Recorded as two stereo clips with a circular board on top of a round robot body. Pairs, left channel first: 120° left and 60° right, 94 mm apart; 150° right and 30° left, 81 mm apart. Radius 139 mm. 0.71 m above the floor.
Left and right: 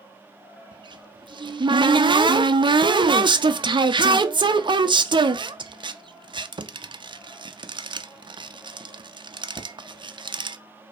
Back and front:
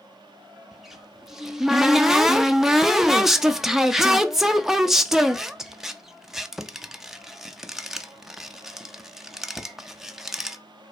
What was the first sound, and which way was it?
A cupboard door, 55° right.